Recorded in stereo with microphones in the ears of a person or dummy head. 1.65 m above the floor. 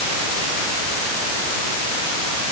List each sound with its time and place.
Only background noise.